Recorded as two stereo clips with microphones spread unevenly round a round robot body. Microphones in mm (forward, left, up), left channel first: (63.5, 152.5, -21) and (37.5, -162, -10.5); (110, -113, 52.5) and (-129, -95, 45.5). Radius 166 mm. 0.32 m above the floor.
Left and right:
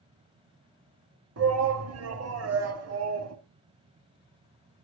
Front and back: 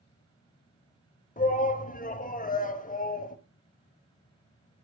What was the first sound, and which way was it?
A shout, 60° right.